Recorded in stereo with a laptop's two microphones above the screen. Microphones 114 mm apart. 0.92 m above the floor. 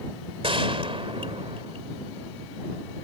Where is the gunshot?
50° right (ahead or behind).